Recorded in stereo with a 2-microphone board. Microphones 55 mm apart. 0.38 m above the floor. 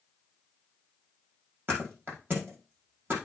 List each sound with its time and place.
1.7 s a thud: 40° right (ahead or behind), 5.5 m